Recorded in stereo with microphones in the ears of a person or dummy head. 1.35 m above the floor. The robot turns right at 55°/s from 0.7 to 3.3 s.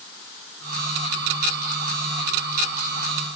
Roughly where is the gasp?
I don't hear a gasp.